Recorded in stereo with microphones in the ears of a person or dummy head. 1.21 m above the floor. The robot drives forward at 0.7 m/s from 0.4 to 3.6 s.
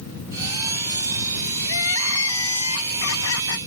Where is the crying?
70° left (ahead or behind); by 3.6 s 65° left (ahead or behind).